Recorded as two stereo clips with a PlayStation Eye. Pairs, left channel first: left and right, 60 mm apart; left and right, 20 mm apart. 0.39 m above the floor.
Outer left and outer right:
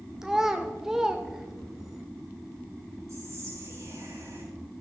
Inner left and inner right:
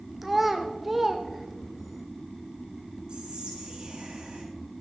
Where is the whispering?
50° right (ahead or behind), 5 m.